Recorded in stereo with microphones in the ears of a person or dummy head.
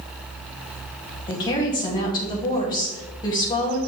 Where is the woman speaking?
20° left (ahead or behind), 2 m.